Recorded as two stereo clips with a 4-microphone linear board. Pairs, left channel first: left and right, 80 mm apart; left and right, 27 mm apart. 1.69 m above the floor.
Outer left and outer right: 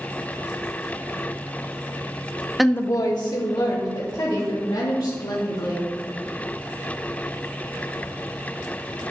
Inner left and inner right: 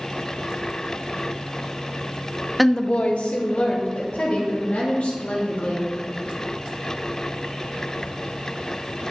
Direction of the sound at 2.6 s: 5° right (ahead or behind).